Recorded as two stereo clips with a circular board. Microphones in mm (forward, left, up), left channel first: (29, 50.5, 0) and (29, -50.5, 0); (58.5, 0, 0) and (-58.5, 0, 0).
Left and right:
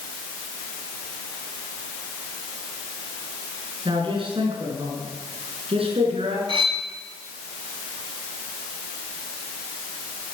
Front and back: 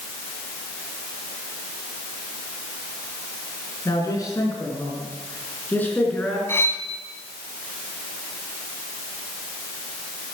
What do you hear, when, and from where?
3.9 s a man speaking: 55° right, 4.5 m; by 6.4 s 80° right, 4.5 m
6.5 s cutlery clinking: 70° right, 1.7 m